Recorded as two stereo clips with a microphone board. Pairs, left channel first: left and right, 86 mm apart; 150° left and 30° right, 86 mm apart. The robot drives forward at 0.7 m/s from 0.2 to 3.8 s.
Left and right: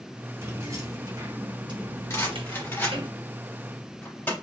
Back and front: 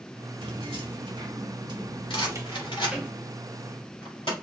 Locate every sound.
0.4 s keys jangling: 35° right, 1.8 m; by 3.1 s 115° right, 1.1 m
2.1 s a rattle: 150° left, 2 m; by 4.3 s 160° left, 3.5 m